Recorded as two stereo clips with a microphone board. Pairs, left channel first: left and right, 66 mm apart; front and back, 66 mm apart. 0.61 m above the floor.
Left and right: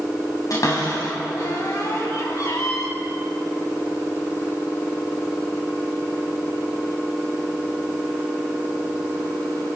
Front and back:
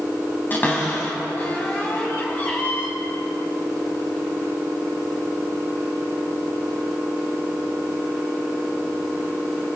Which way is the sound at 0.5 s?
60° left.